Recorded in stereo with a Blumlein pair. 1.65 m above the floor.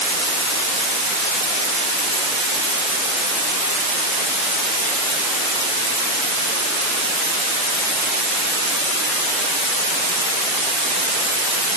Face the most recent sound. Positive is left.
No sound to turn to.